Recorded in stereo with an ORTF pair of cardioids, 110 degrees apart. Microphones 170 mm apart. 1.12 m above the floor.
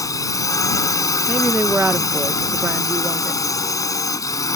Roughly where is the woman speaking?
Ahead.